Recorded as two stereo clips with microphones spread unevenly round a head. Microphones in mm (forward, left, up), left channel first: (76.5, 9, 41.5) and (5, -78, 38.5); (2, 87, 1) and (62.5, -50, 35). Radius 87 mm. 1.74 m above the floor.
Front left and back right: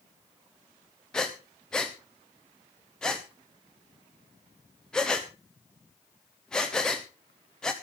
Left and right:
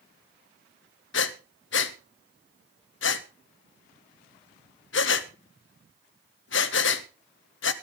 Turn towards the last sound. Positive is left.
turn(degrees=135)